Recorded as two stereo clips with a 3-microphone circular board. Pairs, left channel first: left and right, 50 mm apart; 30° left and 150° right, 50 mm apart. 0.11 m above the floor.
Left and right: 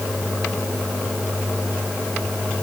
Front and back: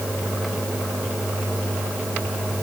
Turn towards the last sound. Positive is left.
No sound to turn to.